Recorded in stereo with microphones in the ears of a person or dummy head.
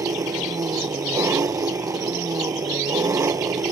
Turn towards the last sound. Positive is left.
turn(degrees=-15)  # may be behind; listen again after turning